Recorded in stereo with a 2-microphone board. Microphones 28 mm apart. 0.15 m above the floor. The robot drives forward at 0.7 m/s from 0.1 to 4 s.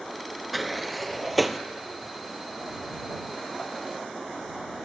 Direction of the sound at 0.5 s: Centre (ahead or behind).